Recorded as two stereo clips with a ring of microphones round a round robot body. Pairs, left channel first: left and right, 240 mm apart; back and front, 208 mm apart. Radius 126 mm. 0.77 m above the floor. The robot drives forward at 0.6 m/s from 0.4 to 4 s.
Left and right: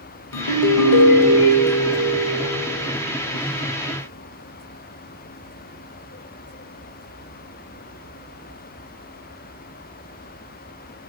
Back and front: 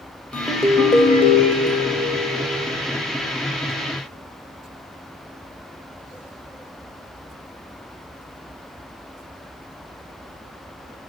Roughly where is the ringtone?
Left.